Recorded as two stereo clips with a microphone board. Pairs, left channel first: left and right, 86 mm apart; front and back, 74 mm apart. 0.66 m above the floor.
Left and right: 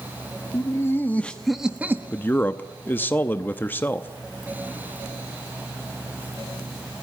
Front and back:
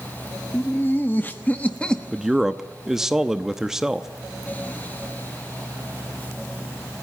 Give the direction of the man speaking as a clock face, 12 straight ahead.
8 o'clock.